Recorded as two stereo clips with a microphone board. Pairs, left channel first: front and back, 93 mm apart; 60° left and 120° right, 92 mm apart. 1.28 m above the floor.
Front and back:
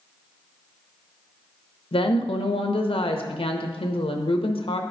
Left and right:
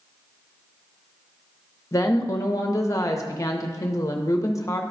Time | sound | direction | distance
1.9 | a woman speaking | 5° left | 0.7 m